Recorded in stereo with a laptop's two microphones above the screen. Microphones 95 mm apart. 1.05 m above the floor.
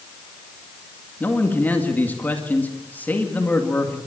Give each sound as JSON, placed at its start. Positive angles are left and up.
{"t": 1.2, "sound": "a man speaking", "side_deg": 20, "distance_m": 2.0}